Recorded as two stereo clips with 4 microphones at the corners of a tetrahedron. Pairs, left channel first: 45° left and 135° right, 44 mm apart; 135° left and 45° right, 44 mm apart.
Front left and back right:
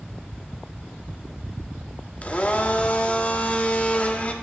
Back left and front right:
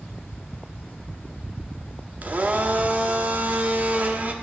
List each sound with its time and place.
2.2 s a blender: 5° right, 0.6 m